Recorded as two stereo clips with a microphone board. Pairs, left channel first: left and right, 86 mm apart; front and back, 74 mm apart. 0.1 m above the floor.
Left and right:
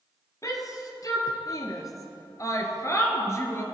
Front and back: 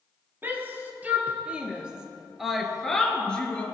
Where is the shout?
125° left, 3 m; by 3.6 s 60° left, 2 m.